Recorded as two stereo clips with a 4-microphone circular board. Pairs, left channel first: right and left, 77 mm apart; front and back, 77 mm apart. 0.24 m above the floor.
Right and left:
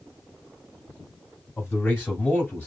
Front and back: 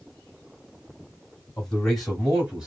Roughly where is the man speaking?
Right.